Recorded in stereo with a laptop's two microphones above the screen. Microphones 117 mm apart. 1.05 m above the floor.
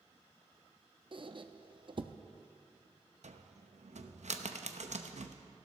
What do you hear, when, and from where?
1.1 s a squeak: 45° right (ahead or behind), 0.6 m
3.2 s a cupboard door: 80° right, 0.8 m